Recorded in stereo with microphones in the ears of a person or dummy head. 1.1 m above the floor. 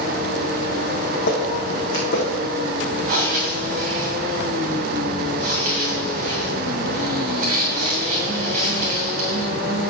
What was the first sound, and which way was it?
Footsteps, 55° left (ahead or behind).